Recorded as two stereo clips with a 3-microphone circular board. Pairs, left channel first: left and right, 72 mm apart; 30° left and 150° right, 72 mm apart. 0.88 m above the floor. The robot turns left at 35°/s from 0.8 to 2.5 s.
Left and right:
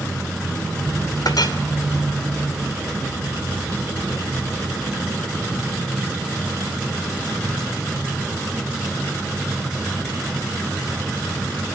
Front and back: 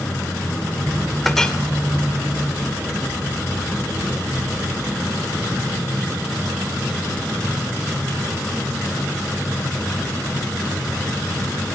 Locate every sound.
1.2 s a clink: 115° left, 2.5 m; by 1.6 s 105° left, 2.5 m